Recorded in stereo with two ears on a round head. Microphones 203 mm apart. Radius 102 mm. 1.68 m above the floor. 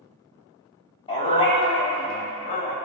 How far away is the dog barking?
About 2.5 m.